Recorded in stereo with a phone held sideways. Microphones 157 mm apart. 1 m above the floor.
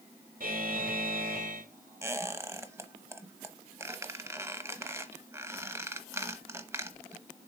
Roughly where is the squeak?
Centre.